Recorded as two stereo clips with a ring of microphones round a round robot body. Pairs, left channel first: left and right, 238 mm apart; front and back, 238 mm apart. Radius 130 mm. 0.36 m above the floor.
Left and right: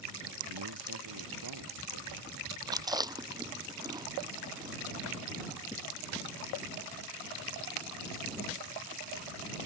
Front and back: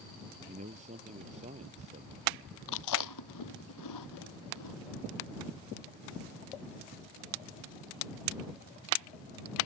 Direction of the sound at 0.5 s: 115° right.